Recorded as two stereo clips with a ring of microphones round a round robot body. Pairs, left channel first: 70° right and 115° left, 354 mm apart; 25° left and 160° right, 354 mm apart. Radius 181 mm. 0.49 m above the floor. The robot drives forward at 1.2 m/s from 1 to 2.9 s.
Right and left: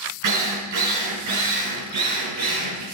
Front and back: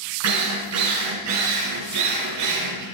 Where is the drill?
155° left, 4 m; by 2.8 s 165° left, 6 m.